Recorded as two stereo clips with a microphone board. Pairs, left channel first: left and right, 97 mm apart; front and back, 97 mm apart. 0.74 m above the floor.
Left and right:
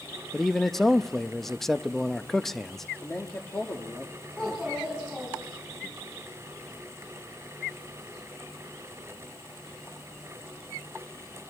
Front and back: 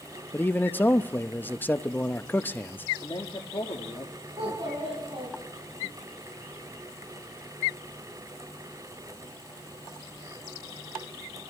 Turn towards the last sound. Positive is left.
turn(degrees=170)